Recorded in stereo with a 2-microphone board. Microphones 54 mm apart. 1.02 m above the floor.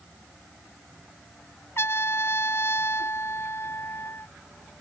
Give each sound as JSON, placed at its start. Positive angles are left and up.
{"t": 1.8, "sound": "a trumpet", "side_deg": 50}